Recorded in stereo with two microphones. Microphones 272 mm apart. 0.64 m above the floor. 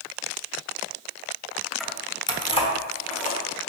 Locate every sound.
1.8 s keys jangling: centre (ahead or behind), 0.5 m; by 3.4 s 25° left (ahead or behind), 1.5 m